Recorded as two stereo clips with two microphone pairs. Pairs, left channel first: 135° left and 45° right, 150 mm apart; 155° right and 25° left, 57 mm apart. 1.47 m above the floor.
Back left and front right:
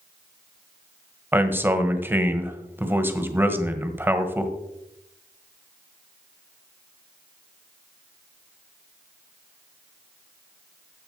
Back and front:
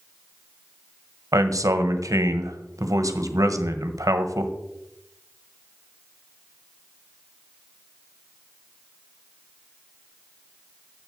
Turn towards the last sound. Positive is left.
turn(degrees=30)